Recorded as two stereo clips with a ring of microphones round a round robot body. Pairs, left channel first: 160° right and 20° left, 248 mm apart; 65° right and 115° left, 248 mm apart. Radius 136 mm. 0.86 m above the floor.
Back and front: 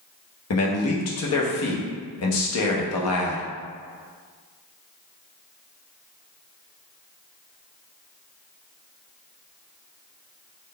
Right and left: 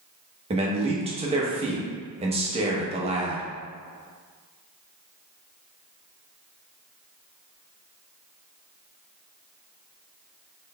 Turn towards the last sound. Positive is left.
turn(degrees=180)